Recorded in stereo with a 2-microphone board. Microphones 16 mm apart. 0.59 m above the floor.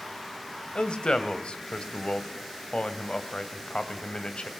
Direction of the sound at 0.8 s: 75° left (ahead or behind).